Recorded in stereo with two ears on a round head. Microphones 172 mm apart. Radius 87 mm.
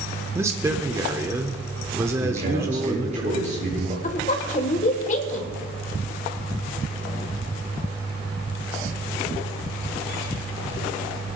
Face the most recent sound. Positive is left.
turn(degrees=40)  # may be behind; listen again after turning